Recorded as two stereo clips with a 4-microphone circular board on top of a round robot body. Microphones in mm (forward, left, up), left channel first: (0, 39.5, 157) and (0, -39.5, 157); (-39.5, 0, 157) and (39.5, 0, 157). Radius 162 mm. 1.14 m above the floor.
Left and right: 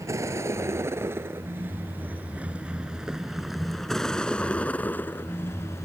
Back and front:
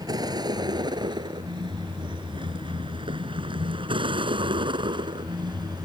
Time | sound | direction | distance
0.0 | a vehicle | 35° right | ?